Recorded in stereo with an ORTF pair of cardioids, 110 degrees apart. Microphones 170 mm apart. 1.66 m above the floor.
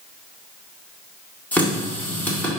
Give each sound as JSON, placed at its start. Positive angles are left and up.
{"t": 1.5, "sound": "a running tap", "azimuth_deg": 10, "distance_m": 1.9}